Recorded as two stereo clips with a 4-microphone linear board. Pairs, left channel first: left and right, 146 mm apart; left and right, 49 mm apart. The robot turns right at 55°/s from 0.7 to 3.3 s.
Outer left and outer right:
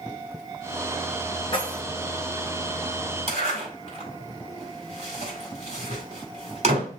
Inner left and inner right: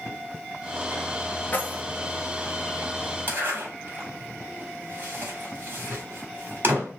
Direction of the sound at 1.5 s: 35° left (ahead or behind).